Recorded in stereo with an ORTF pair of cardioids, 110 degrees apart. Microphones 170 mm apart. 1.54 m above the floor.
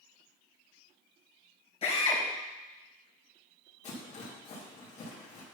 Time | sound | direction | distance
1.8 | a drill | 35° left | 3.5 m
3.8 | a rattle | 40° left | 3 m